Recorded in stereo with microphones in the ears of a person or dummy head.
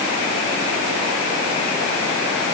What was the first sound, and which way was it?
Only background noise.